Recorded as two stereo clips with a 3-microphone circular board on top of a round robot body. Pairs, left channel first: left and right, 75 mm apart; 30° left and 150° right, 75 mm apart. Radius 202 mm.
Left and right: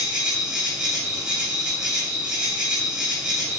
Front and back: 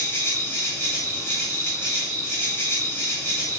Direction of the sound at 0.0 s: 15° right.